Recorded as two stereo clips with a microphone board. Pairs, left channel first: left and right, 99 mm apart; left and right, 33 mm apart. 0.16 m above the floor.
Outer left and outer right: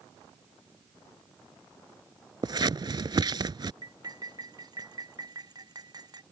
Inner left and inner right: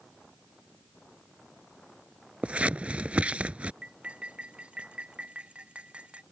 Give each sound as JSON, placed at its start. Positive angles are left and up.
{"t": 2.4, "sound": "scissors", "side_deg": -50}
{"t": 3.8, "sound": "cutlery clinking", "side_deg": -45}